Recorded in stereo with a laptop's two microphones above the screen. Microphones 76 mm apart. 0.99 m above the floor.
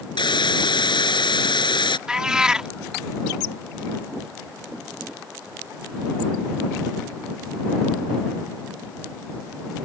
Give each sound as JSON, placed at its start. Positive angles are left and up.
{"t": 0.2, "sound": "a hiss", "side_deg": 85}
{"t": 2.1, "sound": "a cat meowing", "side_deg": -10}